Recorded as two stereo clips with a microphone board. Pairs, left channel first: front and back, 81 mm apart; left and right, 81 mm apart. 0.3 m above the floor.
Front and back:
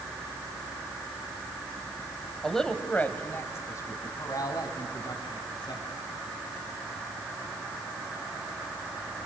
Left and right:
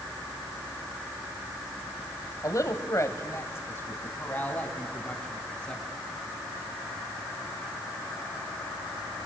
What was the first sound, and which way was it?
A woman speaking, 85° left.